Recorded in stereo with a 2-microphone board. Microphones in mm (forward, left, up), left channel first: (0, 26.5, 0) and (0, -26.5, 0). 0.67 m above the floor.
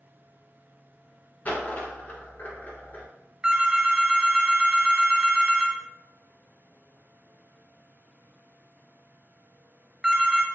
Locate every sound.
1.4 s a dropped coin: 35° left (ahead or behind), 1.3 m
3.4 s a phone ringing: 15° right (ahead or behind), 0.6 m